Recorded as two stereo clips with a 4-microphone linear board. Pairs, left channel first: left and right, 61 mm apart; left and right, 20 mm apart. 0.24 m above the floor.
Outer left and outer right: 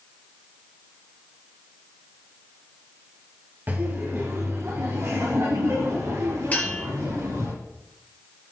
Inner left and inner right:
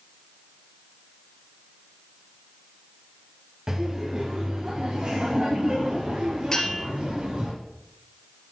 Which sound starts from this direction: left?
A bell, at 6.5 s.